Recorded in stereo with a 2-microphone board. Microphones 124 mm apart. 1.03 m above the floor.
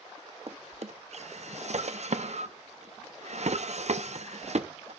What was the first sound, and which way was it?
A drawer, 60° right (ahead or behind).